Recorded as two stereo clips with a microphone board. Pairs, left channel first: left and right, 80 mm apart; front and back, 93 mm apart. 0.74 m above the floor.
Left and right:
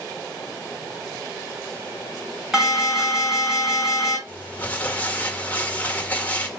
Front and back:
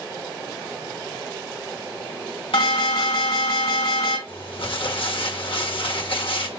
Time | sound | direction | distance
2.5 | an alarm | 10° right | 4.5 m
4.3 | crumpling | 20° left | 1.4 m